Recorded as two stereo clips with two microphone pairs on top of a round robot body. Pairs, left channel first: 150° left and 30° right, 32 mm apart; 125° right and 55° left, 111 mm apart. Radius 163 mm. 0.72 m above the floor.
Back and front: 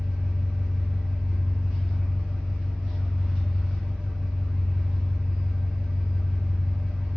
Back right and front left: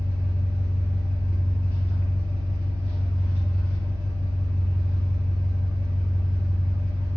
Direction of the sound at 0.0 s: 45° left.